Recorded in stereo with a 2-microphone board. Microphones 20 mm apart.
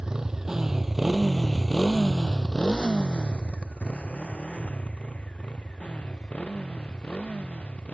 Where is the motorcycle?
40° right (ahead or behind); by 7.9 s 85° left.